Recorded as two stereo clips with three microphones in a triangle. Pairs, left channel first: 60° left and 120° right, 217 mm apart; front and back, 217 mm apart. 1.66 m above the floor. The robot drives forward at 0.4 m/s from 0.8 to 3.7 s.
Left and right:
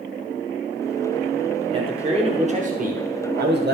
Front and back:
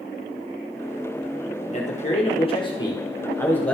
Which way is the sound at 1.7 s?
55° right.